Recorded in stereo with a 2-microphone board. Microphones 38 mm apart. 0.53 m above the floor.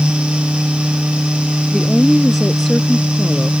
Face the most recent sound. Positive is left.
turn(degrees=5)  # may be behind; listen again after turning